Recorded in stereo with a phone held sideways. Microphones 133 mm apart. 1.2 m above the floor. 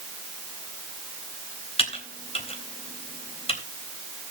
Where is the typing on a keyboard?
50° left (ahead or behind), 3.5 m.